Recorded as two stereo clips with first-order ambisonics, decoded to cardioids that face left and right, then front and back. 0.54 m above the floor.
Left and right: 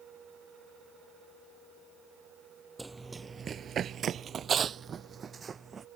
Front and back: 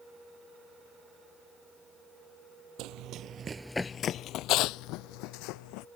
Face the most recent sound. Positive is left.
turn(degrees=-20)